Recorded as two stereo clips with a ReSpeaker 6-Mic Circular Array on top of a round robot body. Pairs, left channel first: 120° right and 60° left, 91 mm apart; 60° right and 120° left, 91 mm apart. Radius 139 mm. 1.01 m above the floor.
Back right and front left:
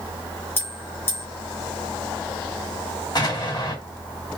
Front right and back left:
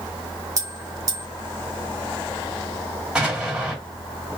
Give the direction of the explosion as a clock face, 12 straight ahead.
5 o'clock.